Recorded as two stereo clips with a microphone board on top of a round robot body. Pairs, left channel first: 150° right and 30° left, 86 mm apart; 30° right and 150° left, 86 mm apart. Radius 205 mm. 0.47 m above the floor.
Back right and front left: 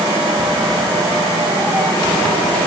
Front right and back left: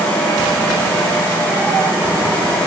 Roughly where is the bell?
I don't hear a bell.